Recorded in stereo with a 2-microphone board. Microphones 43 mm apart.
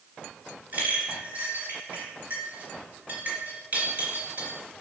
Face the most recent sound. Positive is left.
turn(degrees=-35)  # may be behind; listen again after turning